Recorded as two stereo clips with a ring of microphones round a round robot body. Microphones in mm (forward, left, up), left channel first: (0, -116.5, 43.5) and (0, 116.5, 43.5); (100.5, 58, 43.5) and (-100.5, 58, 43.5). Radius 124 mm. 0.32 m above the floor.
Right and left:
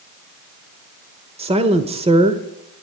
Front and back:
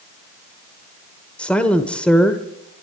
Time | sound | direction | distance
1.4 | a woman speaking | 75° left | 1.3 m